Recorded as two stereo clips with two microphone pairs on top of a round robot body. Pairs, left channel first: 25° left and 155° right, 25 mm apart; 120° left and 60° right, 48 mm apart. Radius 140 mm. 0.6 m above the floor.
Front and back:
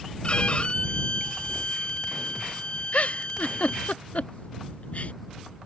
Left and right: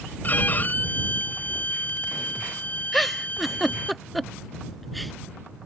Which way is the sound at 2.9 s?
40° left.